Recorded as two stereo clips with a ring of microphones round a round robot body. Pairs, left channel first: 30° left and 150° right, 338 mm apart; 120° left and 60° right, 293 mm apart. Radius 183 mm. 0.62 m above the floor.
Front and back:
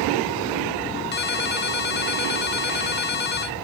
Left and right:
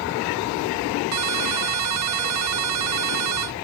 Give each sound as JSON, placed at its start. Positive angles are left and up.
{"t": 1.1, "sound": "a ringtone", "azimuth_deg": -30}